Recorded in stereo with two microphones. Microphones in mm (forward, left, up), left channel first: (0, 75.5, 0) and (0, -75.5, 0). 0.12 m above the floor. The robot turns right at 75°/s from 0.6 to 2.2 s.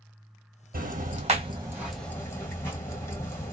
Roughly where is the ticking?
Right.